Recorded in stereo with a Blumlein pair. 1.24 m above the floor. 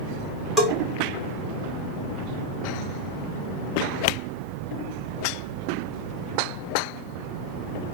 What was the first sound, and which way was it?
A bell, 5° left.